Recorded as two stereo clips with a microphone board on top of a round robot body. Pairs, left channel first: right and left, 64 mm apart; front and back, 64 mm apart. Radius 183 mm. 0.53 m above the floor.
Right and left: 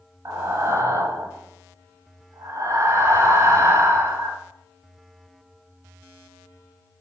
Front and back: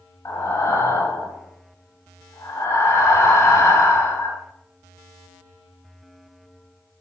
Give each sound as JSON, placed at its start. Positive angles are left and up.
{"t": 0.2, "sound": "breathing", "azimuth_deg": 45, "distance_m": 1.2}